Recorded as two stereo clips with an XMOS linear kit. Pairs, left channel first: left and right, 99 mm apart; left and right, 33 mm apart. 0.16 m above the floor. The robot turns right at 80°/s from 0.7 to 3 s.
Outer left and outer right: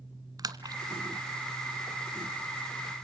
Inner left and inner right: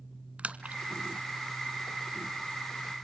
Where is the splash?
40° right (ahead or behind), 1.4 m.